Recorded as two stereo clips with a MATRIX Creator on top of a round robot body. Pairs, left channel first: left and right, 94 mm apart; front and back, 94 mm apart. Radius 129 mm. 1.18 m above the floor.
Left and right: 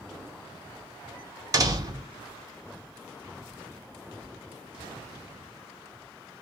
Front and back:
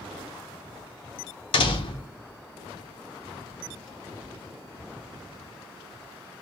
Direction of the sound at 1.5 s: 35° right.